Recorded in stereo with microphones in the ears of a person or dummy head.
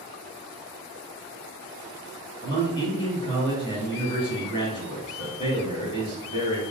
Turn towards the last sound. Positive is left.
turn(degrees=20)  # may be behind; listen again after turning